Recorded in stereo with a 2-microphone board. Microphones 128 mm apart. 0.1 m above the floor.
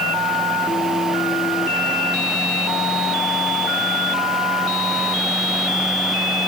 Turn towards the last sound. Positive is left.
No sound to turn to.